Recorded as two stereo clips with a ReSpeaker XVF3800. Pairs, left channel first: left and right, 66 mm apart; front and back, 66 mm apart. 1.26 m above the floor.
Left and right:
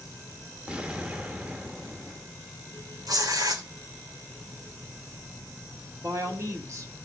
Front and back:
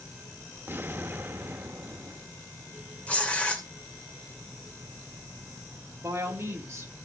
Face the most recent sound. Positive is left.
turn(degrees=-130)